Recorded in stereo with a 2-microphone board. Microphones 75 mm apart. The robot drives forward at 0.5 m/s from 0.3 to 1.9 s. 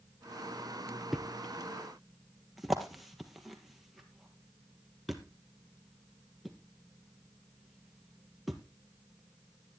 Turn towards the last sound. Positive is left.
turn(degrees=0)  # may be behind; listen again after turning